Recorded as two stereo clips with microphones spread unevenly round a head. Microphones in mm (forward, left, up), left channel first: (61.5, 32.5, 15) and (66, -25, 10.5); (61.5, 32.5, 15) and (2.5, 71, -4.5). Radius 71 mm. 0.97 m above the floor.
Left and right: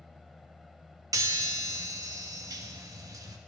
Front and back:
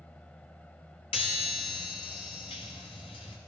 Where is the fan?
5° left, 1.0 m.